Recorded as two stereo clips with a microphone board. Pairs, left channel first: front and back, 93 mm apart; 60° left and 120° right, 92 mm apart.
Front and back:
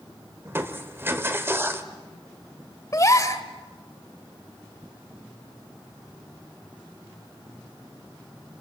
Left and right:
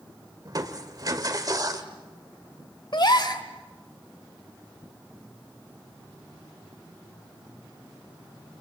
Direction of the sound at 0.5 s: 130° right.